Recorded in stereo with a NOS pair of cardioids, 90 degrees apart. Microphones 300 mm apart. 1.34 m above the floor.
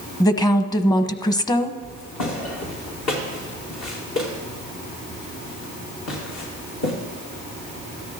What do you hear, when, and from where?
0.2 s a woman speaking: 15° left, 1.0 m
1.8 s footsteps: 65° left, 4.5 m